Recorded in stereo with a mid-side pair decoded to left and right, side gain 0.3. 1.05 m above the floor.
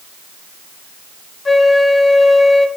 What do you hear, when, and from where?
1.4 s a flute: 40° left, 2.5 m